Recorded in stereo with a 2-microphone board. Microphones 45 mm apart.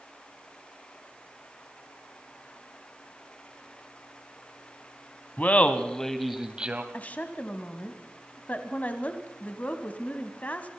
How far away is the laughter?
About 1.3 m.